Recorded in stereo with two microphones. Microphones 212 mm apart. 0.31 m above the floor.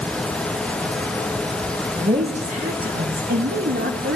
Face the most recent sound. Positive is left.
turn(degrees=-60)  # may be behind; listen again after turning